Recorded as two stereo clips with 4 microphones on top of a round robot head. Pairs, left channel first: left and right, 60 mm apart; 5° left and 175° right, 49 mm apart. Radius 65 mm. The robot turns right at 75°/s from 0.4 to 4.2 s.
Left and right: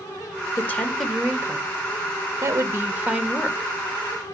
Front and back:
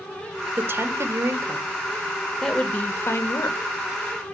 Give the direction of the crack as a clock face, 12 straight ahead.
No crack in this recording.